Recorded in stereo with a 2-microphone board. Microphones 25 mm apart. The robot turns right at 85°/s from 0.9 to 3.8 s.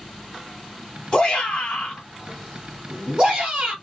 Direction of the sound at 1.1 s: 35° left (ahead or behind).